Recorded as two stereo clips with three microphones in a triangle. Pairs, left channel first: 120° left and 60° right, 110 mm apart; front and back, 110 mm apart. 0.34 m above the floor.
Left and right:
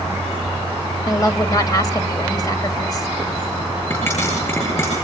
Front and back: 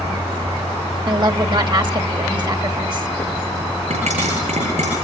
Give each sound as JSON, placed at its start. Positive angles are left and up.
{"t": 1.1, "sound": "a woman speaking", "azimuth_deg": 160, "distance_m": 1.5}
{"t": 3.9, "sound": "a pop", "azimuth_deg": -175, "distance_m": 10.0}